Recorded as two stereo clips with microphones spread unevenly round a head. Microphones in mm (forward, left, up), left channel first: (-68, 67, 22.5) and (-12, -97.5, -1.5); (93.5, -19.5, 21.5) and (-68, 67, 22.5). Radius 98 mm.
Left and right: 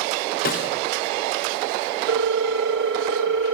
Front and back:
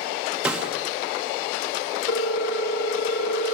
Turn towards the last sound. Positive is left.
turn(degrees=-60)